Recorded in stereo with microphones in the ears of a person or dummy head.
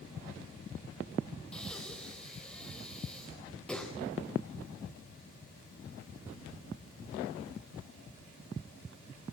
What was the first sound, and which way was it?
Breathing, 5° left (ahead or behind).